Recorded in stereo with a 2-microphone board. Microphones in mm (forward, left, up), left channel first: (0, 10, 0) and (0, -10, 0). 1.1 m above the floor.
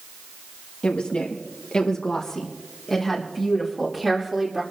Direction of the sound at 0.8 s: 75° left (ahead or behind).